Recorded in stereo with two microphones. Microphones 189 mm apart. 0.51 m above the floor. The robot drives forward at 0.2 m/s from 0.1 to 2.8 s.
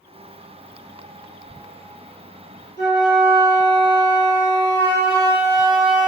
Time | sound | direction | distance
2.8 | a flute | 70° left (ahead or behind) | 1.1 m